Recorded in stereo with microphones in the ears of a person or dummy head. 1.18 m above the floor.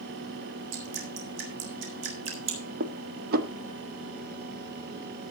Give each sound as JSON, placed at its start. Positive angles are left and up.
{"t": 0.7, "sound": "dripping", "side_deg": -65, "distance_m": 4.0}
{"t": 2.8, "sound": "dishes clattering", "side_deg": -50, "distance_m": 1.2}